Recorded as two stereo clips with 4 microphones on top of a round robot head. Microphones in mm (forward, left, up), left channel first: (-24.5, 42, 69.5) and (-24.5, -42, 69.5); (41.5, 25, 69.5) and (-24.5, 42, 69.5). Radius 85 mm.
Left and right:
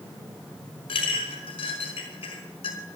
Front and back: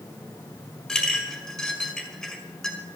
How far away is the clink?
About 4.5 m.